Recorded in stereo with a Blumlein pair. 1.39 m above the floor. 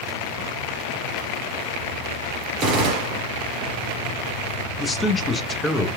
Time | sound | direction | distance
2.6 | a gunshot | 35° right | 0.9 m
4.8 | a man speaking | 10° left | 0.7 m